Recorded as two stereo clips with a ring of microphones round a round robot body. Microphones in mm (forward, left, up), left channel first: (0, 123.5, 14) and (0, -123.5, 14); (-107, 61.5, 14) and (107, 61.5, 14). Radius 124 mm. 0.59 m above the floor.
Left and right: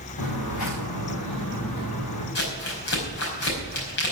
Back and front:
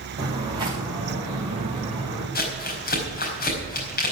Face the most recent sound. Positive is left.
turn(degrees=135)